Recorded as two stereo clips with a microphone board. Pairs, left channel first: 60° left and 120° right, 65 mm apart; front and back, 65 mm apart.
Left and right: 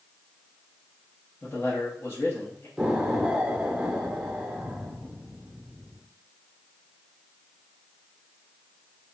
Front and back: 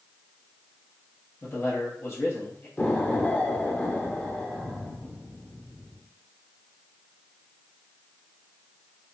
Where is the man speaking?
20° left, 1.1 m.